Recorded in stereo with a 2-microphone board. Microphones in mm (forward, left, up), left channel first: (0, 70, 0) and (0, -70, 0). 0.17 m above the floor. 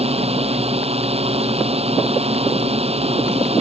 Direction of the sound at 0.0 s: 45° right (ahead or behind).